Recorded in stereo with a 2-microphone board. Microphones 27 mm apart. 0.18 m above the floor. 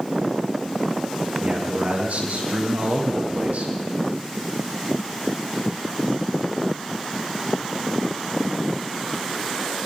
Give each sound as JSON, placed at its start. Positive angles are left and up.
{"t": 1.4, "sound": "a man speaking", "side_deg": -80, "distance_m": 7.5}